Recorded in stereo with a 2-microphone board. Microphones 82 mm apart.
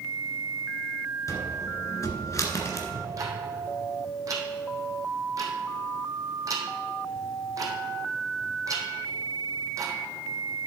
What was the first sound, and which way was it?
A cupboard door, 40° left (ahead or behind).